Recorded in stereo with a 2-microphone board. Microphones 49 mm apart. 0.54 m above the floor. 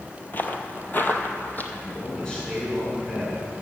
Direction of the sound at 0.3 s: 40° left (ahead or behind).